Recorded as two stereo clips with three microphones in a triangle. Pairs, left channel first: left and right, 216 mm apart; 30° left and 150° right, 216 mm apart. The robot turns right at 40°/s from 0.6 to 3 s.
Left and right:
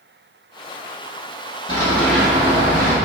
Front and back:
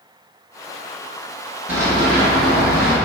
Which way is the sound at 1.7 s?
135° left.